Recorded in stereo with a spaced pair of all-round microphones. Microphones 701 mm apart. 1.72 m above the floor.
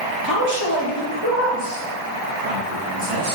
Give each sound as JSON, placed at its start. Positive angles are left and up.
{"t": 0.2, "sound": "a man speaking", "side_deg": -30, "distance_m": 1.8}